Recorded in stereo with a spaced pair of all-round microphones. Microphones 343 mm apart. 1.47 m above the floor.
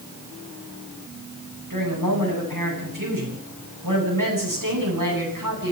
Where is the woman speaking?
65° right (ahead or behind), 9.5 m.